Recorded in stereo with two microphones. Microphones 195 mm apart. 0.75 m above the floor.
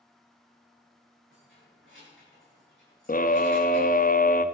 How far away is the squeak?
I don't hear a squeak.